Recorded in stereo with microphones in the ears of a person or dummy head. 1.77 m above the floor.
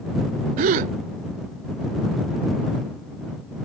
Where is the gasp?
45° right (ahead or behind).